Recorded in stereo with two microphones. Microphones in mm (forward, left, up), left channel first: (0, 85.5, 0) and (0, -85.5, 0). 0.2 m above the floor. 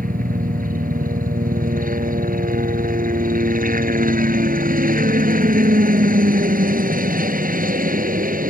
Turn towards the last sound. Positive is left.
turn(degrees=-60)  # may be behind; listen again after turning